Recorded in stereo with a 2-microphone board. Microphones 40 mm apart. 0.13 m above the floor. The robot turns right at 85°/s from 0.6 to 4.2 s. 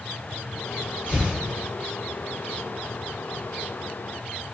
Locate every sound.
1.1 s tearing paper: 35° left (ahead or behind), 1.9 m; by 1.4 s 50° left (ahead or behind), 1.9 m